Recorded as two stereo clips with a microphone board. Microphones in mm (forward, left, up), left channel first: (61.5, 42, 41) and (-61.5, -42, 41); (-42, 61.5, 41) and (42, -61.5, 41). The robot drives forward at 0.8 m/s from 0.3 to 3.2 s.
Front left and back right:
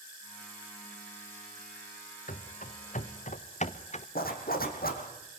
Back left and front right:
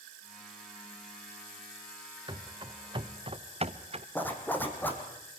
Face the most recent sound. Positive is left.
turn(degrees=45)